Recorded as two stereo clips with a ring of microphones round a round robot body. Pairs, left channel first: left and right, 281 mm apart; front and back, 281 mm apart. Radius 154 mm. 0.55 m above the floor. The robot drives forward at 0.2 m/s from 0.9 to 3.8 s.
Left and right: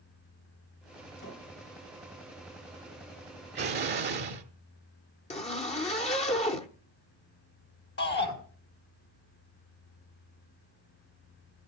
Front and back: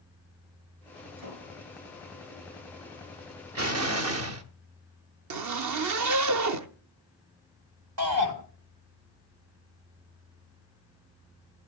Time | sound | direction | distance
1.2 | a door slam | 155° left | 7.5 m
3.5 | an explosion | 145° right | 1.3 m
5.3 | a zipper | 160° left | 0.8 m
8.0 | a shout | 145° left | 4 m